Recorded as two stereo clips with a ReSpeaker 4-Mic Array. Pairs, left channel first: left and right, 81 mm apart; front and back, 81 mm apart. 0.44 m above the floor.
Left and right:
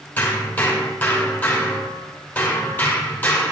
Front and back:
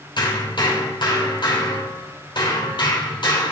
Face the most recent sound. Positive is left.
turn(degrees=25)